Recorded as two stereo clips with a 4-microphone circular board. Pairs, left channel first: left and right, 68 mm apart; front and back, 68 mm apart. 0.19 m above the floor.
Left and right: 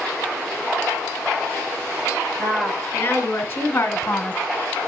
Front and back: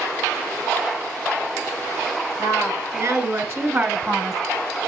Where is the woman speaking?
150° left, 3.5 m; by 4.4 s 90° left, 1.4 m.